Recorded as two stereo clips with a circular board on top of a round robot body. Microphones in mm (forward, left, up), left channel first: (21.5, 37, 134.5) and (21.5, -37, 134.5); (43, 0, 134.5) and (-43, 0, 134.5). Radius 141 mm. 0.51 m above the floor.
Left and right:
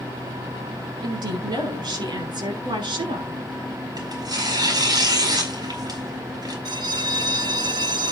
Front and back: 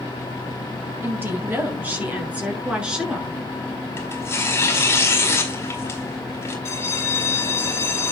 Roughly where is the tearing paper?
Ahead right.